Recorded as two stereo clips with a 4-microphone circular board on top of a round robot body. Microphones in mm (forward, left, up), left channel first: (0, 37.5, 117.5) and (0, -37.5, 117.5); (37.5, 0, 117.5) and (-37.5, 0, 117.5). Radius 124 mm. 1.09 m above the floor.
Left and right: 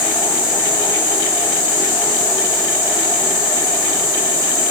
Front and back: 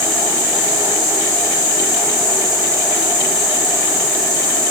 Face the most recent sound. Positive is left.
turn(degrees=90)